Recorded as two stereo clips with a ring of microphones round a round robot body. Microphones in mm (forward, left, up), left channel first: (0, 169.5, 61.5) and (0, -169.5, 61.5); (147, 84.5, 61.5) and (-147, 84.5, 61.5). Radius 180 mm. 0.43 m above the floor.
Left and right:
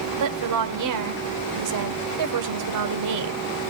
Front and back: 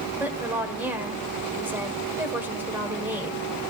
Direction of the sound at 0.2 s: 95° right.